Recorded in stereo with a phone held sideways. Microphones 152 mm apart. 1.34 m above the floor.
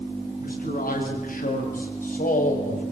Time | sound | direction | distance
0.4 | a man speaking | 70° left (ahead or behind) | 8.5 m